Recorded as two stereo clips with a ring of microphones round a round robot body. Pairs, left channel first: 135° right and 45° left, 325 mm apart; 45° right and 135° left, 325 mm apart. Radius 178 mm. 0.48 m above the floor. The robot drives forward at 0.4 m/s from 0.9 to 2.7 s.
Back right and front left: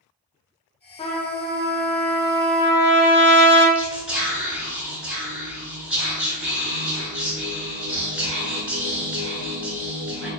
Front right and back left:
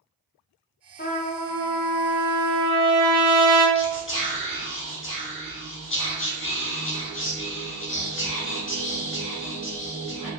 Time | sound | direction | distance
1.0 | a trumpet | 75° right | 0.6 m
3.8 | whispering | 40° right | 1.0 m